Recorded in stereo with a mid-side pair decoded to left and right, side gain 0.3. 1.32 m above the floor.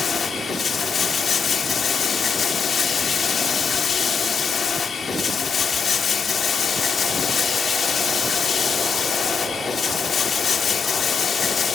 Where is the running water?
60° left, 3.5 m.